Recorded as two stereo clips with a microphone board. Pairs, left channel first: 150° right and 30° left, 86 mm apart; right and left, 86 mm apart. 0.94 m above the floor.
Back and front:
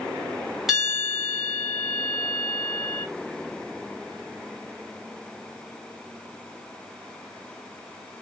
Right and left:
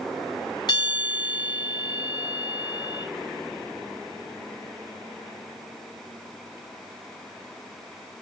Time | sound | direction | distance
0.7 | a bell | 55° right | 3.5 m